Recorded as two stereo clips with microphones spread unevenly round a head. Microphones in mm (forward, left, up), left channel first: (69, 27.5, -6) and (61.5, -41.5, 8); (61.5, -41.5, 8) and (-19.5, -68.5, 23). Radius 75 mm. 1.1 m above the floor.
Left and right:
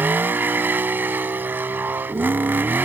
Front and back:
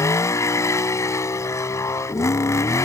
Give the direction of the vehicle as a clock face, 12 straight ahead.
1 o'clock.